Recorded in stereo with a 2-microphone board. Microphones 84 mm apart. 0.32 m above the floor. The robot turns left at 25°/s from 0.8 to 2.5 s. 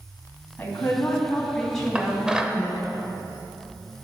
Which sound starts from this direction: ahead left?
A woman speaking, at 0.6 s.